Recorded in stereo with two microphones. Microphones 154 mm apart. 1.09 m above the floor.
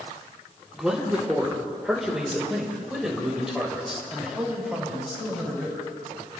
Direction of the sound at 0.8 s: 5° right (ahead or behind).